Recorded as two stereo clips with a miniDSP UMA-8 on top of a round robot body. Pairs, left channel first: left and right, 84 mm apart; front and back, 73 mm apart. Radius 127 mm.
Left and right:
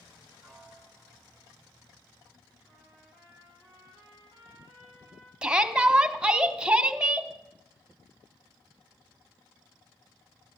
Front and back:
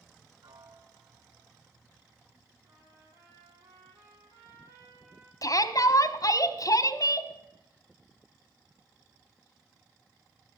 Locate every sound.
0.4 s a piano: 175° left, 2 m
2.6 s a trumpet: 155° left, 8 m
5.4 s a shout: 10° right, 1.2 m